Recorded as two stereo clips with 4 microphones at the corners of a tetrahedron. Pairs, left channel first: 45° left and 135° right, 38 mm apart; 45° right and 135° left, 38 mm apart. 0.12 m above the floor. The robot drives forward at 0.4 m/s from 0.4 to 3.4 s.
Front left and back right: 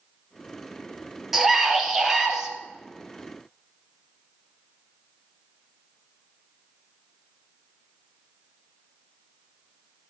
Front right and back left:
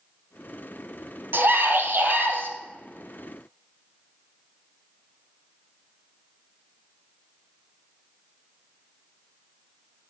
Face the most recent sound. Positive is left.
turn(degrees=155)